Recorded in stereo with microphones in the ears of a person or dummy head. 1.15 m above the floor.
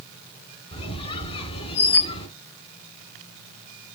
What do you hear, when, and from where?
0.7 s a squeak: 30° left (ahead or behind), 1.8 m